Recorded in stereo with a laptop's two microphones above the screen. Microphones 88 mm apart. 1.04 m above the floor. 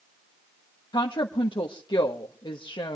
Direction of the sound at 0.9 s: 60° left (ahead or behind).